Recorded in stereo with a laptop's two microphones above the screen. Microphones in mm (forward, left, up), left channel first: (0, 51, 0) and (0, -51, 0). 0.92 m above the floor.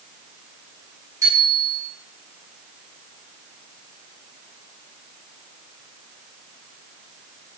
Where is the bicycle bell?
35° right (ahead or behind), 6.5 m.